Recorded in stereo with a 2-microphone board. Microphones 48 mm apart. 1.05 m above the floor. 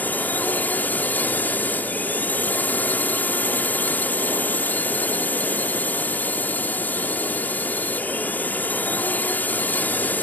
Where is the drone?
35° left (ahead or behind).